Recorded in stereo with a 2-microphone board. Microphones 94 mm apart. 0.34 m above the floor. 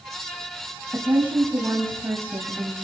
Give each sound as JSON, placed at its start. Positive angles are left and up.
{"t": 0.9, "sound": "a woman speaking", "side_deg": -25, "distance_m": 2.0}